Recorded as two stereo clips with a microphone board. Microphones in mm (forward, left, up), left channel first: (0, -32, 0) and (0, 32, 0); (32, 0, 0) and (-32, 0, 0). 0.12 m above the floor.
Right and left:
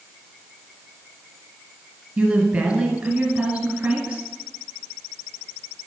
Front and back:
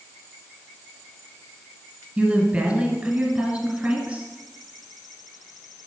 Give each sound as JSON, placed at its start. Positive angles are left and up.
{"t": 2.2, "sound": "a woman speaking", "azimuth_deg": 140, "distance_m": 1.3}